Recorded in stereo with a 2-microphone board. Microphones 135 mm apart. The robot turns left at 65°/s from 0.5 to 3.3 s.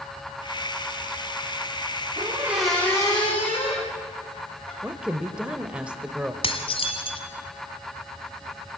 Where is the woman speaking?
10° right (ahead or behind), 1.0 m.